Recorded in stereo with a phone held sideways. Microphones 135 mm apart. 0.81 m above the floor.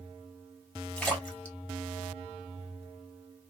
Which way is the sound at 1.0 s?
10° left (ahead or behind).